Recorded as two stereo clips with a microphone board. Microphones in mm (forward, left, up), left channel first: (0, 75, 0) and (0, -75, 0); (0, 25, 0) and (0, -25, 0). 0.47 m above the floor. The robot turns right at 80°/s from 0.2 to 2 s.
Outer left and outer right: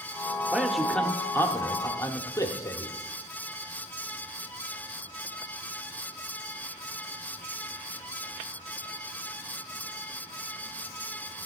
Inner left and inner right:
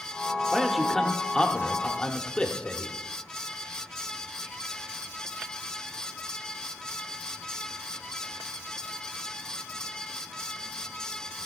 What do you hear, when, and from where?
0.5 s a man speaking: 5° right (ahead or behind), 0.8 m; by 3.0 s 20° left (ahead or behind), 0.8 m